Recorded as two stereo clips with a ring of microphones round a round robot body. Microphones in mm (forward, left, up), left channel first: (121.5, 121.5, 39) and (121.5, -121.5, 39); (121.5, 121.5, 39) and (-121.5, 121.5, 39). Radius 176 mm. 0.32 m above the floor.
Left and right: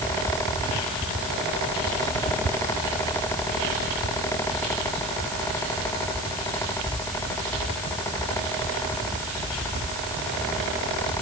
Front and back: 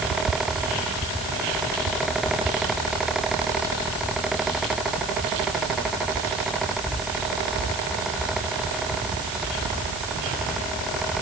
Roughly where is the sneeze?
I don't hear a sneeze.